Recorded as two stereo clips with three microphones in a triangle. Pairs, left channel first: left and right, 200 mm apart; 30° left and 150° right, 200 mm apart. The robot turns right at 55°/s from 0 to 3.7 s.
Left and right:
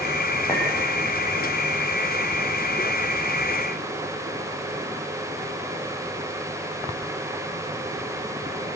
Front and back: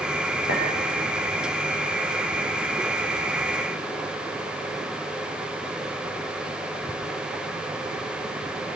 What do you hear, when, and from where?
0.5 s a clink: 15° left, 7 m; by 0.7 s 20° left, 7 m